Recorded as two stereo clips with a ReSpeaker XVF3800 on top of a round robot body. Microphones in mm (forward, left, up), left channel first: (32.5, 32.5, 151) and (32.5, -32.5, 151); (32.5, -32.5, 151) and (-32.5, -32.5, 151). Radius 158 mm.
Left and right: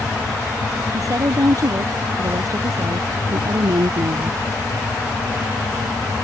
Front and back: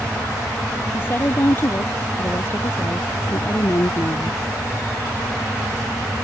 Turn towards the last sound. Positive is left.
turn(degrees=-55)